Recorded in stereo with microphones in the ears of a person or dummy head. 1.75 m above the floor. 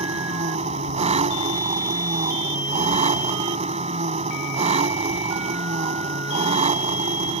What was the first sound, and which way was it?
An engine running, 35° right (ahead or behind).